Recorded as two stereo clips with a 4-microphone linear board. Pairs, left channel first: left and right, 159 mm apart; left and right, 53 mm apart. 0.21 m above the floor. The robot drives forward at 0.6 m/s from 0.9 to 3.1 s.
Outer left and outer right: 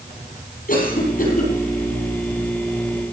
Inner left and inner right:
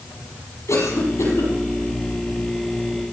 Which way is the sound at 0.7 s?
65° left (ahead or behind).